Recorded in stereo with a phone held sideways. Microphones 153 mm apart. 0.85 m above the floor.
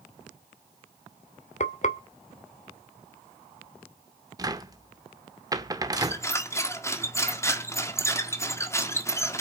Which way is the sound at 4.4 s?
25° right (ahead or behind).